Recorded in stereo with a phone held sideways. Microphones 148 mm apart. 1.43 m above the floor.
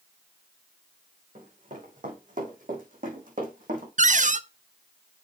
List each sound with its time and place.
1.4 s running footsteps: 60° right (ahead or behind), 4 m; by 3.9 s 65° right (ahead or behind), 3.5 m
4.0 s a cupboard door: 55° right (ahead or behind), 0.5 m